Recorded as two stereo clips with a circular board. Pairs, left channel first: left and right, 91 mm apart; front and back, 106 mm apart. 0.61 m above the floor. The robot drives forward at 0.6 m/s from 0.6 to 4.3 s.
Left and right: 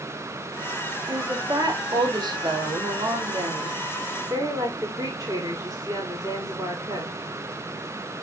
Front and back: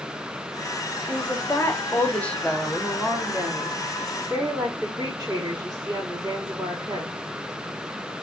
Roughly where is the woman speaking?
Ahead right.